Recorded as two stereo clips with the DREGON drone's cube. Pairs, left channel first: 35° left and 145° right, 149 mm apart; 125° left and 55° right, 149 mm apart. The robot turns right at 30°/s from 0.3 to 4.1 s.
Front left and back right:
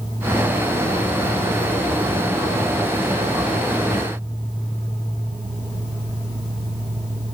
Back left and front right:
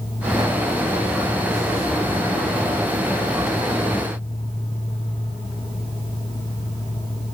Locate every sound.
Only background noise.